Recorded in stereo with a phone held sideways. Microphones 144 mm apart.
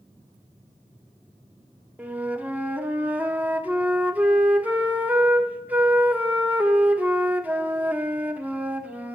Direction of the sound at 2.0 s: 10° right (ahead or behind).